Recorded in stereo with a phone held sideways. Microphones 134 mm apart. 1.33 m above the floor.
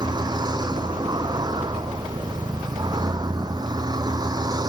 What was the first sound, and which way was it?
A vehicle, 30° right (ahead or behind).